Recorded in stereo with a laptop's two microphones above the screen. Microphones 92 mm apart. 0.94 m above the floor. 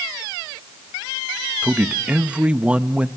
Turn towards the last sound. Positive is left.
turn(degrees=-10)  # may be behind; listen again after turning